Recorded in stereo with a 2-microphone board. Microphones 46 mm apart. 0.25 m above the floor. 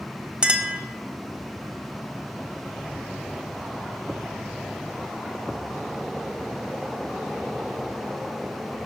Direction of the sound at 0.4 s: 25° right (ahead or behind).